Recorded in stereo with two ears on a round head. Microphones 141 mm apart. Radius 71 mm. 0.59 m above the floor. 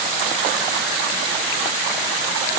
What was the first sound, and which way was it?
Only background noise.